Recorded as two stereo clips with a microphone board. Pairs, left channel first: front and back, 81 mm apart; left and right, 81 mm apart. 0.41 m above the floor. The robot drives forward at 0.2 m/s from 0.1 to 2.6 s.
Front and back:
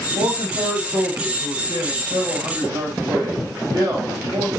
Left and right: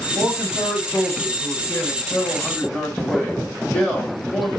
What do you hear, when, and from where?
0.1 s a man speaking: 165° left, 3 m